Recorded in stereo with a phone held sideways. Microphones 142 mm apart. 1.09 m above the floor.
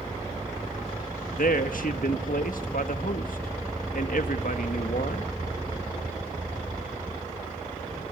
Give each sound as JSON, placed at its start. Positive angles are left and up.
{"t": 1.4, "sound": "a man speaking", "side_deg": 75, "distance_m": 1.5}